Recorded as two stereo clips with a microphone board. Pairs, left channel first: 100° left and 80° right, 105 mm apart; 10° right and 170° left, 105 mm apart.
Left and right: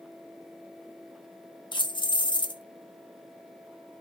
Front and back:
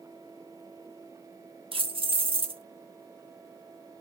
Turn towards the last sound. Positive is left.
turn(degrees=140)